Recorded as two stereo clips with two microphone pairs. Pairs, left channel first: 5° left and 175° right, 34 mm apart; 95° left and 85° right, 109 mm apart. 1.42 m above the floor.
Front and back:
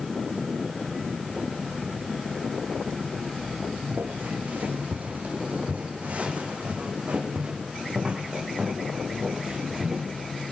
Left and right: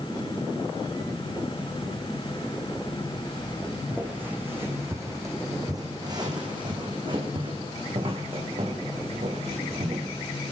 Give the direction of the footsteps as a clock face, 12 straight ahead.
5 o'clock.